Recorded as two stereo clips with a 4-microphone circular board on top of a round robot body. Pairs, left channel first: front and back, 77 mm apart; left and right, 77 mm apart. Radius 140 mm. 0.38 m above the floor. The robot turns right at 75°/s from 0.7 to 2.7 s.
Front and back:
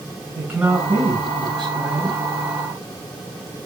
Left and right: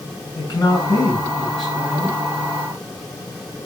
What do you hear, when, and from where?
0.3 s a man speaking: 110° left, 5 m; by 2.2 s 135° right, 5 m